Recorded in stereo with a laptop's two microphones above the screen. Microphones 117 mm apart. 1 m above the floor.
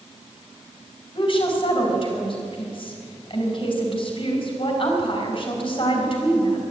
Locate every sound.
1.1 s a woman speaking: 45° left (ahead or behind), 4.5 m